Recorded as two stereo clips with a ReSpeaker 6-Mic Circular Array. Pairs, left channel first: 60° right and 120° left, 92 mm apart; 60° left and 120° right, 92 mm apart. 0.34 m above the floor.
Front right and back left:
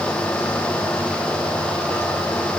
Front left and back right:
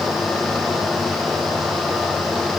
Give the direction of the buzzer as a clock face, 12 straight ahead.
No buzzer in this recording.